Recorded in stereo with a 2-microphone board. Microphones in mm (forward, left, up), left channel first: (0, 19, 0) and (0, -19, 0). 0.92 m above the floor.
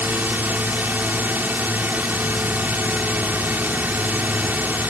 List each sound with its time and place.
0.0 s a drone: 50° right (ahead or behind)